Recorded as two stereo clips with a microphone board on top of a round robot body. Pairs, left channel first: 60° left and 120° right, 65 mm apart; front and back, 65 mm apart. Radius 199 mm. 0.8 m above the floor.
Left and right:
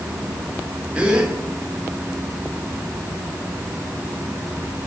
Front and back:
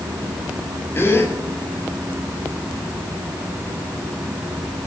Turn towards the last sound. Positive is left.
turn(degrees=-50)